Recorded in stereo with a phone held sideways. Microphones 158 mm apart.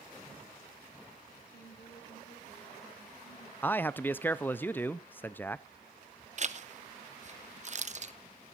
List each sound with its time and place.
1.5 s a woman speaking: 75° left (ahead or behind), 6.5 m; by 3.5 s 85° left, 8 m
3.6 s a man speaking: 10° left (ahead or behind), 0.6 m
6.4 s a zipper: 50° right (ahead or behind), 0.7 m